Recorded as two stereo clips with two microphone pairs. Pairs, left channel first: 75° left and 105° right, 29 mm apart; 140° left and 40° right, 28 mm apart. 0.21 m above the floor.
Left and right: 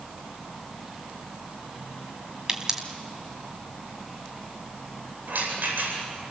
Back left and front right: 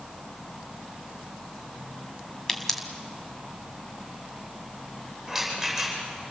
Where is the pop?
155° right, 1.8 m.